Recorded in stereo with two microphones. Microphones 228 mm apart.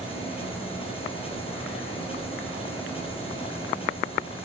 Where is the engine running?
25° left (ahead or behind), 8 m.